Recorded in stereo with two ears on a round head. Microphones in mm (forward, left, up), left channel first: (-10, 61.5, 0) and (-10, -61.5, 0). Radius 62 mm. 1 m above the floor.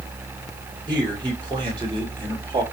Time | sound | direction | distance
0.9 | a man speaking | 30° right (ahead or behind) | 5 m